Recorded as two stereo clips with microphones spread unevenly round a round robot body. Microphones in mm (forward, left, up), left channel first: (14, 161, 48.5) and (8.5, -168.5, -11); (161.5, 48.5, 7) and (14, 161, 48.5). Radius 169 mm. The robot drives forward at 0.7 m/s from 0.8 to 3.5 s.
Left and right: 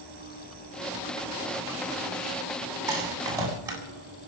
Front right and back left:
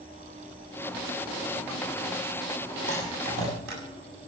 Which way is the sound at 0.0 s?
140° right.